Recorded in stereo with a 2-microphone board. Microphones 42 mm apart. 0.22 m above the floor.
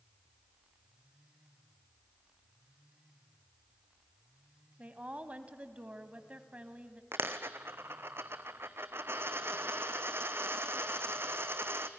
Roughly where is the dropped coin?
Right.